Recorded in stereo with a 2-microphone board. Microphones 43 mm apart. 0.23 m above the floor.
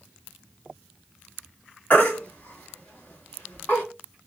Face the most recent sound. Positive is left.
turn(degrees=45)  # may be behind; listen again after turning